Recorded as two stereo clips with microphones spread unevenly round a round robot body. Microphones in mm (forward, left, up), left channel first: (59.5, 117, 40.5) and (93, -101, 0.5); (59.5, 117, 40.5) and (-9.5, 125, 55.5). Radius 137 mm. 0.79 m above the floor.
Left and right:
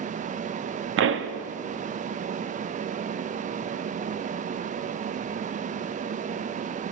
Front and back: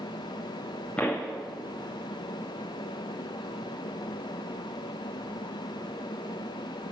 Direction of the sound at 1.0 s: 80° right.